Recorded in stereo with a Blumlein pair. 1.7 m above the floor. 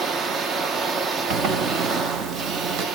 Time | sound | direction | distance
0.0 | a machine running | 25° right | 0.7 m
1.3 | a zipper | 35° right | 0.9 m